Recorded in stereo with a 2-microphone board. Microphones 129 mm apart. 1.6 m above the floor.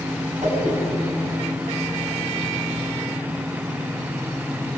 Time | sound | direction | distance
0.4 | a whoosh | 60° right (ahead or behind) | 8 m